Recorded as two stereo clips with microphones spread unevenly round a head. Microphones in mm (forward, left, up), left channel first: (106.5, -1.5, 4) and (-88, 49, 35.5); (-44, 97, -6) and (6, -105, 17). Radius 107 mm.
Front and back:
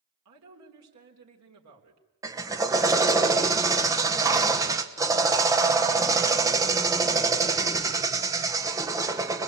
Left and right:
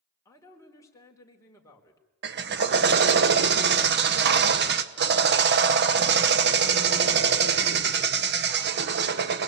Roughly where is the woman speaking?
Behind.